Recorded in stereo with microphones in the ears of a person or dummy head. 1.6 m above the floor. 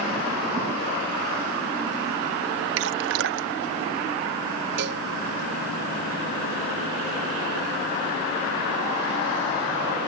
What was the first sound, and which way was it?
Dripping, 65° right (ahead or behind).